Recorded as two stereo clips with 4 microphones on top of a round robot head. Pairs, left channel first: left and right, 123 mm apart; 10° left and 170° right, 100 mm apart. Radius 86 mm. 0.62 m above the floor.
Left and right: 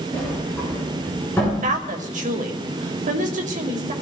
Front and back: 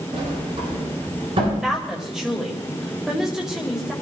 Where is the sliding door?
165° left, 8.5 m.